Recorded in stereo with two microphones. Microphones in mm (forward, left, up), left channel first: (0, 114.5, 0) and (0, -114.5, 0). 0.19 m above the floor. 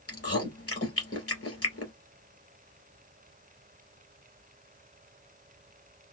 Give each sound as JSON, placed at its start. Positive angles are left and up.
{"t": 0.1, "sound": "chewing", "side_deg": 70, "distance_m": 2.0}